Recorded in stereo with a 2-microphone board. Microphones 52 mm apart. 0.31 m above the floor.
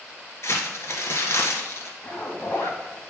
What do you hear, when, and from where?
0.4 s crumpling: 60° left (ahead or behind), 1.6 m
2.0 s a zipper: 50° left (ahead or behind), 3 m